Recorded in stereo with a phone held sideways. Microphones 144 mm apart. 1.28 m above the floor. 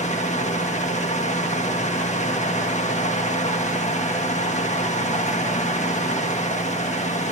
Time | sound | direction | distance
0.0 | a fan | 55° left (ahead or behind) | 1.6 m